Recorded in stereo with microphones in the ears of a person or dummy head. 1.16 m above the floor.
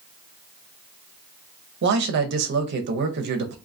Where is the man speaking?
65° right (ahead or behind), 0.7 m.